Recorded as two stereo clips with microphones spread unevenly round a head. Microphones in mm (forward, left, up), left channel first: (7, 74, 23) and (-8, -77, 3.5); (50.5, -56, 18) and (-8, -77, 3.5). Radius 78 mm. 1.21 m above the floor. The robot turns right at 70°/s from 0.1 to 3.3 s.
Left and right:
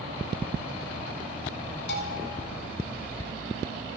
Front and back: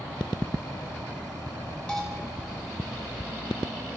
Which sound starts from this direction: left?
A bell, at 1.9 s.